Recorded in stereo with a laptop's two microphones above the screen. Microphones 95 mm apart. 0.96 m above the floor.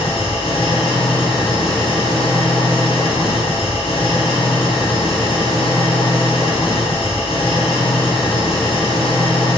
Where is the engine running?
70° left (ahead or behind), 7.5 m.